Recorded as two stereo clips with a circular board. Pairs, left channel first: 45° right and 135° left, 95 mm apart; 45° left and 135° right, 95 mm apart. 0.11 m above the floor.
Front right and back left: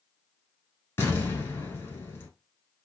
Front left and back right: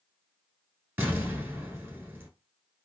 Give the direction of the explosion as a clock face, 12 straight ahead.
3 o'clock.